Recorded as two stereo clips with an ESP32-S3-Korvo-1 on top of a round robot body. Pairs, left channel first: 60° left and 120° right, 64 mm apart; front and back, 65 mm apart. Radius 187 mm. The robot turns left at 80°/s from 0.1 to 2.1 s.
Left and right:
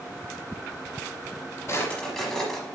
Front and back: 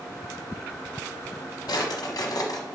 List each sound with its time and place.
1.7 s a drawer: 5° left, 0.7 m; by 2.6 s 30° right, 0.7 m